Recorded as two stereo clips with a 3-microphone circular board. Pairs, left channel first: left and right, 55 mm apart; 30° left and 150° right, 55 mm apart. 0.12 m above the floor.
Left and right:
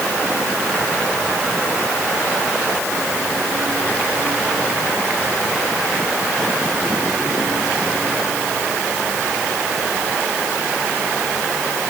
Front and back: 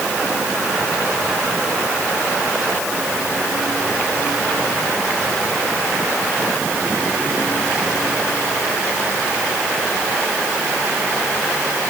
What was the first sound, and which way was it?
Only background noise.